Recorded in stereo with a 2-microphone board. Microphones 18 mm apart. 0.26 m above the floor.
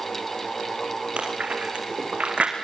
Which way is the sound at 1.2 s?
85° right.